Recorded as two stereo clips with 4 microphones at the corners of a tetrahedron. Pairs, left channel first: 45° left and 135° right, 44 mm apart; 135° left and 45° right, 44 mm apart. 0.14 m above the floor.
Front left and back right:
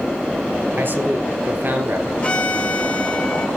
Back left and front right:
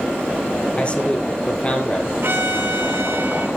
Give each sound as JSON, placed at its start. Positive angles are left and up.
{"t": 0.8, "sound": "a man speaking", "azimuth_deg": -170, "distance_m": 3.5}
{"t": 2.2, "sound": "a violin", "azimuth_deg": -15, "distance_m": 3.0}